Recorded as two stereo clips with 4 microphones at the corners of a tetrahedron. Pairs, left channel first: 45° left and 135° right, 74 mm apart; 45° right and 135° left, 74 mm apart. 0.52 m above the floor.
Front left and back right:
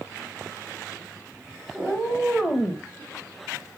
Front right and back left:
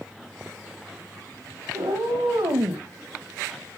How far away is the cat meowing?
About 2 m.